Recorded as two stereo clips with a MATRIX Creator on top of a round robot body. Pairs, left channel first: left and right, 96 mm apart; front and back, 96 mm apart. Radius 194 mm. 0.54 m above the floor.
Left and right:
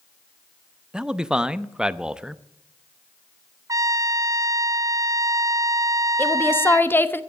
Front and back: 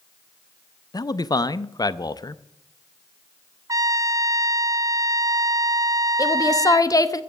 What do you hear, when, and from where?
0.9 s a man speaking: 10° right, 0.9 m
3.7 s a trumpet: 135° right, 0.9 m
6.2 s a woman speaking: 30° left, 1.3 m